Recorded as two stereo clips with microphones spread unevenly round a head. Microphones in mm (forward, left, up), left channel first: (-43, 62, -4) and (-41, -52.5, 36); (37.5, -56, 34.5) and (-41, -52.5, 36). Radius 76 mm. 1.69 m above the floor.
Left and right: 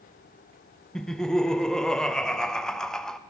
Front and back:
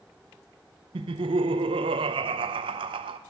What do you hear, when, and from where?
0.9 s laughter: straight behind, 0.5 m